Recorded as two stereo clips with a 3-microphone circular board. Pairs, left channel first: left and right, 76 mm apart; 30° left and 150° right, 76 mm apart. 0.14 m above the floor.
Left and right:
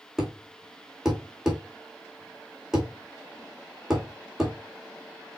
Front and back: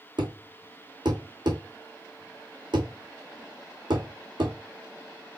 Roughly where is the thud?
Behind.